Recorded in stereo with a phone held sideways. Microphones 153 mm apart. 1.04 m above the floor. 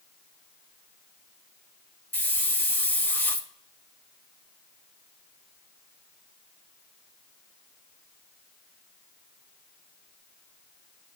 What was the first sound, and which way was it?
A hiss, 15° left (ahead or behind).